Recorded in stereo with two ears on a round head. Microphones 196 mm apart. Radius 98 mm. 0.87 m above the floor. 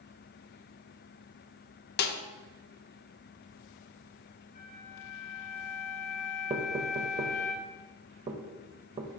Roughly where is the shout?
I don't hear a shout.